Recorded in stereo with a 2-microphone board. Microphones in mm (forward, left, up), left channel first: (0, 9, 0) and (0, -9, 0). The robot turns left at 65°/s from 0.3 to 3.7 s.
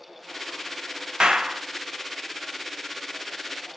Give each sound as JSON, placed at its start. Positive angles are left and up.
{"t": 1.2, "sound": "a clap", "side_deg": -60, "distance_m": 0.8}